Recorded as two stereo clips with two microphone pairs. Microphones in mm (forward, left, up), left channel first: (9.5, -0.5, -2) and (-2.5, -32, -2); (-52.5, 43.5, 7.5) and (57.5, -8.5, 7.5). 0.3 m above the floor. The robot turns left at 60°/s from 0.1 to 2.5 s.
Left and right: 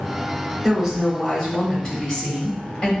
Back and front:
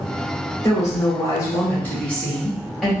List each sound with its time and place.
0.6 s a woman speaking: straight behind, 1.2 m; by 2.9 s 65° left, 1.2 m